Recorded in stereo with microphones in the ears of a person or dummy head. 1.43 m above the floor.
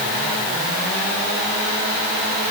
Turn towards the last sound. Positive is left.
No sound to turn to.